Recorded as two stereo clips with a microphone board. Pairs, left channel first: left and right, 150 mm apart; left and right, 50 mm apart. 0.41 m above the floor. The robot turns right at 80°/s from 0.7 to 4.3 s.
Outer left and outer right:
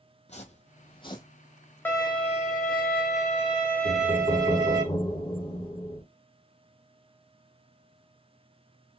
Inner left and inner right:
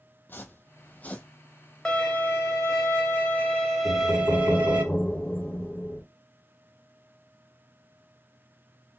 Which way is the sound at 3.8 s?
95° left.